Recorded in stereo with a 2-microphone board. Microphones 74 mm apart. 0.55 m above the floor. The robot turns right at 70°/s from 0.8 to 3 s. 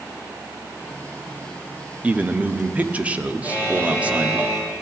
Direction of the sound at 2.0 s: 20° right (ahead or behind).